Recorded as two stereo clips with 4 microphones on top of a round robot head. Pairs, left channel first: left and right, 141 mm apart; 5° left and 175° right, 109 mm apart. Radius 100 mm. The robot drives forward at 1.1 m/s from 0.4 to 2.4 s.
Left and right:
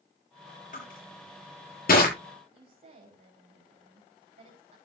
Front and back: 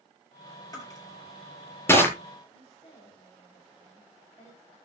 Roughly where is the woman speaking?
Ahead right.